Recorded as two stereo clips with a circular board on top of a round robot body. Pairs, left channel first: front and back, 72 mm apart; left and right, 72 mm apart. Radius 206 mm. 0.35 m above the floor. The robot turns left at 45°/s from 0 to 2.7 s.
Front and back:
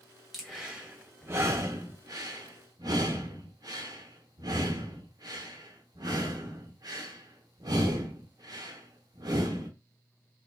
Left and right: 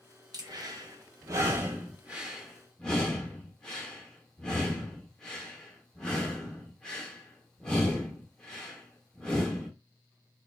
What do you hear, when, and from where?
0.3 s breathing: 85° right, 1.1 m; by 9.7 s 170° left, 1.1 m